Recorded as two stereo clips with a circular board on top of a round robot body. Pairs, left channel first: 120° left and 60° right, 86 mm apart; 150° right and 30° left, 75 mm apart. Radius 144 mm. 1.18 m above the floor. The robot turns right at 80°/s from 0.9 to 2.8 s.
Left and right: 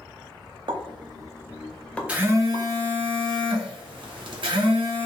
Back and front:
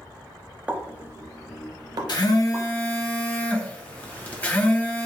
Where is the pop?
40° right, 0.6 m; by 2.7 s 100° left, 0.6 m.